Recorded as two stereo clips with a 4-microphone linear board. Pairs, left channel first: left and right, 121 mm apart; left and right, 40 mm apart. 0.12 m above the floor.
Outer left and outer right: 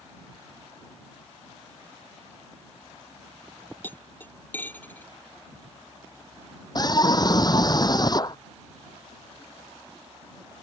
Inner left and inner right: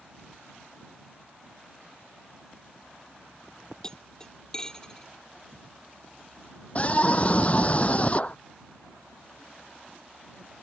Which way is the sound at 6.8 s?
35° left (ahead or behind).